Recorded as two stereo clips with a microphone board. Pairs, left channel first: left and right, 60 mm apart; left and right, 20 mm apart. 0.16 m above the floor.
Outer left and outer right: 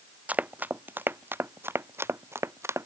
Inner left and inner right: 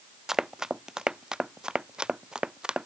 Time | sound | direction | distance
0.3 | running footsteps | 25° right (ahead or behind) | ?